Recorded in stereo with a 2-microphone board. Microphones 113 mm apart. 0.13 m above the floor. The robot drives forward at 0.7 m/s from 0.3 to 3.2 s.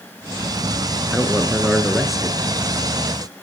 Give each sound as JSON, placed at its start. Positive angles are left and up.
{"t": 1.1, "sound": "a man speaking", "side_deg": 0, "distance_m": 1.5}